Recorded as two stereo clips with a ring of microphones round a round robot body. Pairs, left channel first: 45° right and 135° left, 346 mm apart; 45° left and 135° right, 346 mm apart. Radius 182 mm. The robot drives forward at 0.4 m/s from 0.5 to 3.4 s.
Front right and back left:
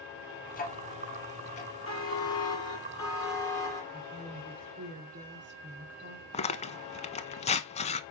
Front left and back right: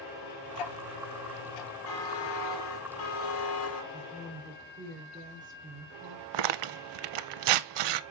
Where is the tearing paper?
120° right, 0.6 m.